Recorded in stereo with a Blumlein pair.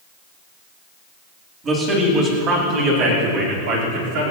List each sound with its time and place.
1.6 s a man speaking: 25° right, 4 m; by 4.3 s 50° right, 5 m